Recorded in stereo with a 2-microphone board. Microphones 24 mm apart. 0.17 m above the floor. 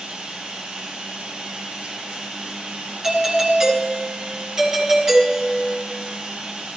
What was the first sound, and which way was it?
Running water, 45° right (ahead or behind).